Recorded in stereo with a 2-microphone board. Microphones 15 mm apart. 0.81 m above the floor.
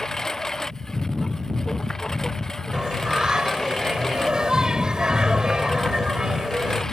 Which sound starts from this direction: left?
A lawn mower, at 0.0 s.